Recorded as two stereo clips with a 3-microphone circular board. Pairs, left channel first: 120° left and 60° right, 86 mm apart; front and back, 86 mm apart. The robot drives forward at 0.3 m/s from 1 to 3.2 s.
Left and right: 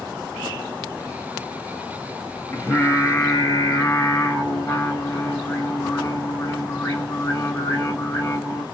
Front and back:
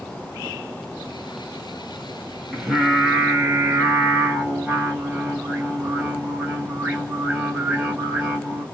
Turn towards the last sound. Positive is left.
turn(degrees=125)